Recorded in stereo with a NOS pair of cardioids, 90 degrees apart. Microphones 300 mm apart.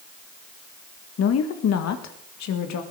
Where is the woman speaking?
55° left, 1.6 m; by 2.8 s 70° left, 2 m.